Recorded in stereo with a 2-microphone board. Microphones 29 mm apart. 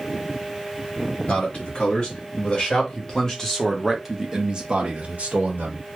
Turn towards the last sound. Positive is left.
turn(degrees=-65)  # may be behind; listen again after turning